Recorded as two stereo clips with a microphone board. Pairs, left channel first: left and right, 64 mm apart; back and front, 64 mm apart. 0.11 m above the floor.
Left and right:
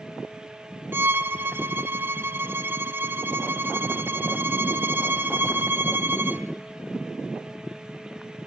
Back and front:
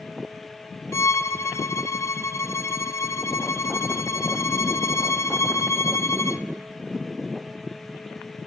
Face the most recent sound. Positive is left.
turn(degrees=-145)